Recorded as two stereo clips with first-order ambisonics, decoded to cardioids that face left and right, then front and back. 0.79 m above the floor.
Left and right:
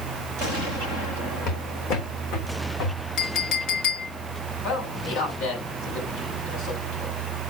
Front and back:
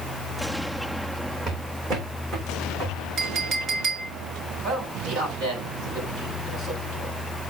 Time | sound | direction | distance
1.5 | footsteps | 110° left | 3 m
3.2 | a clink | 120° left | 2.0 m
4.6 | a man speaking | 105° left | 6.5 m